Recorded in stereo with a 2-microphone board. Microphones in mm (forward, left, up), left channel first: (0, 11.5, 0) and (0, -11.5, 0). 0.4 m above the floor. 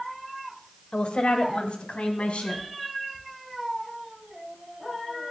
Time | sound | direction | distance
0.9 | a woman speaking | 45° left (ahead or behind) | 1.5 m